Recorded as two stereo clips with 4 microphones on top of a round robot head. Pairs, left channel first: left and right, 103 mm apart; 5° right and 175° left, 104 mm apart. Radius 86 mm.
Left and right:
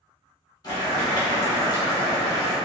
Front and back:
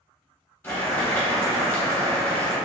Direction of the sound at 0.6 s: 60° left.